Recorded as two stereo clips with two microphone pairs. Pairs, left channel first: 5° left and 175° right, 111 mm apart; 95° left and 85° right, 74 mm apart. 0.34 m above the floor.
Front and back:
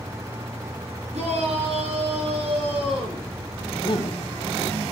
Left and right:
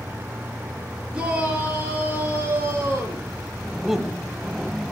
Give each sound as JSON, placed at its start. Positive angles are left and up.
{"t": 1.1, "sound": "a shout", "azimuth_deg": -160, "distance_m": 7.5}
{"t": 3.8, "sound": "a man speaking", "azimuth_deg": 0, "distance_m": 2.0}